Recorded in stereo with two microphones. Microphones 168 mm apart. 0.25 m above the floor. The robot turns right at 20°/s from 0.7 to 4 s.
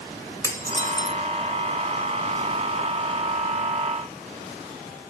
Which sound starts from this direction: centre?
Dishes clattering, at 0.4 s.